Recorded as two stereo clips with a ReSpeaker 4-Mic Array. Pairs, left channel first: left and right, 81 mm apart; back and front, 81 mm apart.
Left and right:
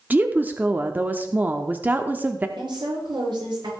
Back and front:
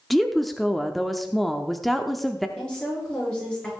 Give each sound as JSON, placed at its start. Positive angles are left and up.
{"t": 0.1, "sound": "a woman speaking", "azimuth_deg": -95, "distance_m": 0.7}
{"t": 2.6, "sound": "a woman speaking", "azimuth_deg": -100, "distance_m": 7.0}